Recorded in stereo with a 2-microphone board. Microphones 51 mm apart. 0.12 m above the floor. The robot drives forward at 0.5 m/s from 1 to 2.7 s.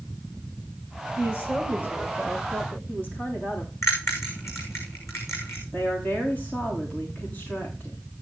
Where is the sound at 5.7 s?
40° left (ahead or behind), 7.5 m.